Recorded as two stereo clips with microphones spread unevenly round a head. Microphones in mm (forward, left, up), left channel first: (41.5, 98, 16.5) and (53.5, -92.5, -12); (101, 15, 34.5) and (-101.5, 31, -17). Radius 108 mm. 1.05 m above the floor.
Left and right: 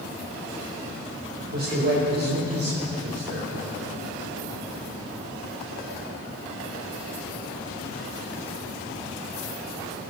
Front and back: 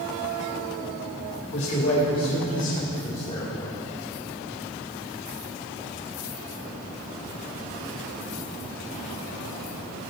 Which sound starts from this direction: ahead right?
A man speaking, at 1.5 s.